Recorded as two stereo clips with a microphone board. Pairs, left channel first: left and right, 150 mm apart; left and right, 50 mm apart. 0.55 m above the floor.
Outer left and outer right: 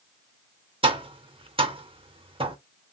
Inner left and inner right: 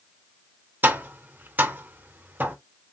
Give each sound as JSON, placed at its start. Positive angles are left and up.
{"t": 0.8, "sound": "tapping", "side_deg": -35, "distance_m": 0.5}